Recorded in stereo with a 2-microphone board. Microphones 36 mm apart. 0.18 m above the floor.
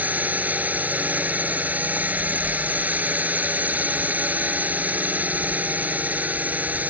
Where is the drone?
50° right (ahead or behind).